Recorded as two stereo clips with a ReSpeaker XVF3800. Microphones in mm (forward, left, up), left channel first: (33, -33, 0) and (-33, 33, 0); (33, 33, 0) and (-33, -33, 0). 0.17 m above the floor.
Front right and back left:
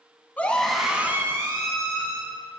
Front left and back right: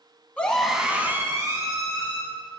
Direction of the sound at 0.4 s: 5° right.